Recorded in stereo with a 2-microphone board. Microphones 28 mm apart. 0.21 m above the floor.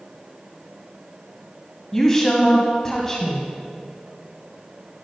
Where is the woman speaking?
15° left (ahead or behind), 1.0 m.